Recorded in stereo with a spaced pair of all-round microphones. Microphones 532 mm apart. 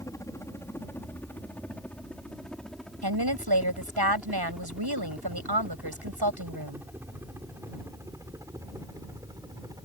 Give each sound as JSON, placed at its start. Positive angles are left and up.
{"t": 0.0, "sound": "a helicopter", "side_deg": 5}
{"t": 3.0, "sound": "a woman speaking", "side_deg": -45}